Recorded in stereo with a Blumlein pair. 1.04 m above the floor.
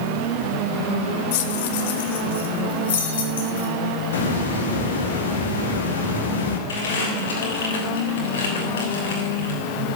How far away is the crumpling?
About 6.5 m.